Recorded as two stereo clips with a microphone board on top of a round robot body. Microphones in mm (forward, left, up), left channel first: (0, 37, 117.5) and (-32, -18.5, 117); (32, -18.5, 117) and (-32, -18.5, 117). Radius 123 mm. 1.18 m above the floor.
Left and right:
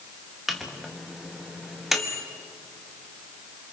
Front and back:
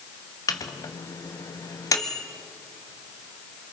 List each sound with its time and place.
0.5 s a microwave: 35° right, 1.1 m